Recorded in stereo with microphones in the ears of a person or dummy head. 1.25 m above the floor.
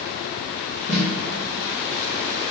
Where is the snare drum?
55° left (ahead or behind), 1.2 m.